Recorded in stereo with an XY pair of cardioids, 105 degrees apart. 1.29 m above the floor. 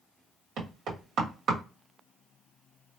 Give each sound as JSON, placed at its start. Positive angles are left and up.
{"t": 0.6, "sound": "knocking", "azimuth_deg": -70, "distance_m": 1.5}